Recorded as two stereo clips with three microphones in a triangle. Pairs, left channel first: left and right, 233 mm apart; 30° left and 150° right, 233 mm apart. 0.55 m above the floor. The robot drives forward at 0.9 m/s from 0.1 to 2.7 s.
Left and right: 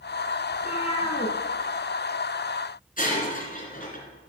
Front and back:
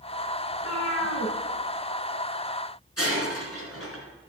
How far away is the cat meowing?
About 2.5 m.